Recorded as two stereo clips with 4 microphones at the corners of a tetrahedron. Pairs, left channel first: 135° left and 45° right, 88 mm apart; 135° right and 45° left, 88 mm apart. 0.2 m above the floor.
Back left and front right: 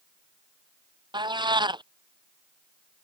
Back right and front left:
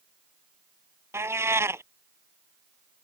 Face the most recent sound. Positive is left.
turn(degrees=-15)